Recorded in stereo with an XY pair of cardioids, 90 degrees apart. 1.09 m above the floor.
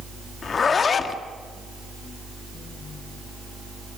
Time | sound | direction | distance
0.4 | a zipper | 55° left | 1.5 m